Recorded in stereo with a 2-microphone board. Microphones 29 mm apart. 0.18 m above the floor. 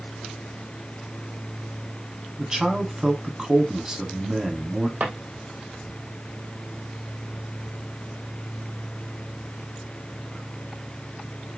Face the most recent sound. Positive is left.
turn(degrees=-65)  # may be behind; listen again after turning